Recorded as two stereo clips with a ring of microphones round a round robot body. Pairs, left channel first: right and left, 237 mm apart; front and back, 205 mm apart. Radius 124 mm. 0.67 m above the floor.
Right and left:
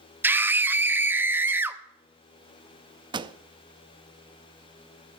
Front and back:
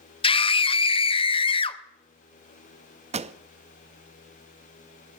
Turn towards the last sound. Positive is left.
turn(degrees=145)